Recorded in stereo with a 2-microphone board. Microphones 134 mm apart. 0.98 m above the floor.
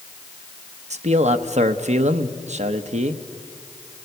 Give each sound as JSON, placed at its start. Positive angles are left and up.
{"t": 0.9, "sound": "a man speaking", "side_deg": -65, "distance_m": 1.0}